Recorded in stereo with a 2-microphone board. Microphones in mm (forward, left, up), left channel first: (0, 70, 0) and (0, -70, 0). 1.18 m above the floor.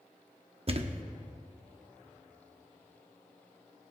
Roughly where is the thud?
Right.